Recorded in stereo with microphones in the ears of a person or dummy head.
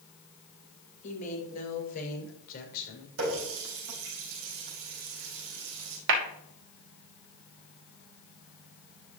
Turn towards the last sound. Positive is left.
turn(degrees=-70)  # may be behind; listen again after turning